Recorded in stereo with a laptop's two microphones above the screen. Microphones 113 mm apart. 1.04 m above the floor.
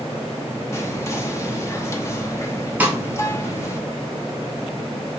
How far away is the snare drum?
About 0.7 m.